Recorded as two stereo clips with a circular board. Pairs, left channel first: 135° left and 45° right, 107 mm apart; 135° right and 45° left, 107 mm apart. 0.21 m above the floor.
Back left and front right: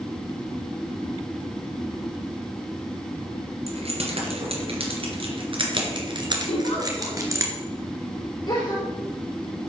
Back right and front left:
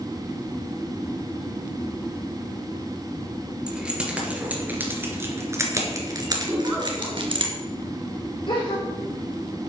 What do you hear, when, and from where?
3.7 s keys jangling: 40° right, 3 m; by 7.5 s 15° left, 2.5 m
6.5 s a giggle: 115° left, 5.5 m
8.5 s a gasp: 175° right, 5.5 m